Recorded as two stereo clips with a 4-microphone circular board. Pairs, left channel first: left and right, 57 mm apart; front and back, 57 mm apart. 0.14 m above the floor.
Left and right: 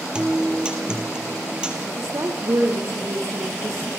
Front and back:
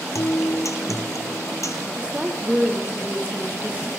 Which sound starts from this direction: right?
A woman speaking, at 1.9 s.